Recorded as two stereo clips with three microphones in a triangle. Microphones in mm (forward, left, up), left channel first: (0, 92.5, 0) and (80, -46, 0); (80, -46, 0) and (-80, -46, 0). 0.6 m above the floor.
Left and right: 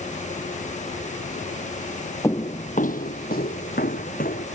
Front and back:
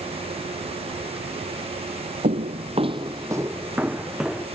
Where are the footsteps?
175° right; by 4.5 s 95° left.